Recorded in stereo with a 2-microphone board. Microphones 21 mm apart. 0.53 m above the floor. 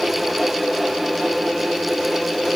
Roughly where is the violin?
I don't hear a violin.